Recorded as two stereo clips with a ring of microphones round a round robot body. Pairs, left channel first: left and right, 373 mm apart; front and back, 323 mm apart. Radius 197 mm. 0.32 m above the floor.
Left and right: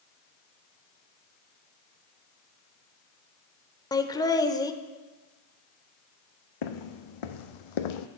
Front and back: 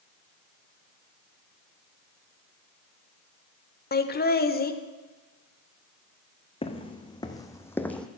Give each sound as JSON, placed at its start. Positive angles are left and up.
{"t": 3.9, "sound": "laughter", "azimuth_deg": 20, "distance_m": 1.0}
{"t": 6.6, "sound": "footsteps", "azimuth_deg": 75, "distance_m": 1.6}